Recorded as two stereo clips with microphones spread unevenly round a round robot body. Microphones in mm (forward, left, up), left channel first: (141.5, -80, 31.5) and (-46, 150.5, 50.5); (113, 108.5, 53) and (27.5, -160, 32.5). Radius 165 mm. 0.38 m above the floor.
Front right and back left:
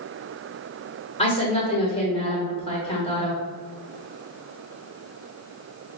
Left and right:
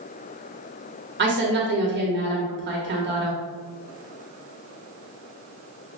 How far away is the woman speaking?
About 1.2 m.